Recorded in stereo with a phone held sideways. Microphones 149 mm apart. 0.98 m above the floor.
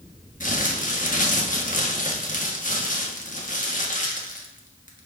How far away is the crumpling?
About 1.3 m.